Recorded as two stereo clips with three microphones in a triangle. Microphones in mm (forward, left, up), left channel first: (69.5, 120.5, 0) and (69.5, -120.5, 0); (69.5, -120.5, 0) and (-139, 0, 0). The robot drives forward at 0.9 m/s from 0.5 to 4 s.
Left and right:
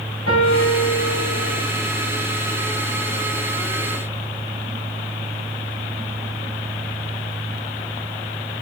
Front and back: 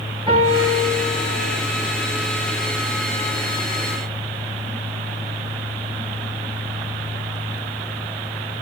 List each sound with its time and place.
0.3 s a piano: 80° left, 9 m; by 1.6 s 85° left, 8.5 m